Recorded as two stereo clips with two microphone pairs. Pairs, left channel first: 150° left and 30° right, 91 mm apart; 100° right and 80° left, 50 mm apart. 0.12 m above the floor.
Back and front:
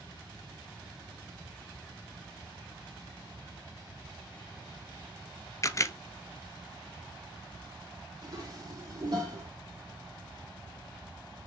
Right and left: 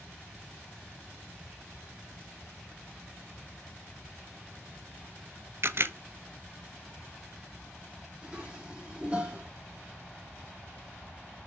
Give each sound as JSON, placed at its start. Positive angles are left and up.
{"t": 5.6, "sound": "a camera shutter", "azimuth_deg": 105, "distance_m": 0.5}
{"t": 8.2, "sound": "dishes clattering", "azimuth_deg": 15, "distance_m": 4.0}